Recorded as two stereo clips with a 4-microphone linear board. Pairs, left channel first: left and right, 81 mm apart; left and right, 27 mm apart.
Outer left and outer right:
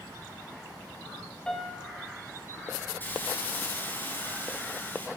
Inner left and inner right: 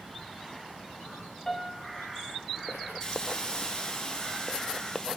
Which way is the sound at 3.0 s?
20° left (ahead or behind).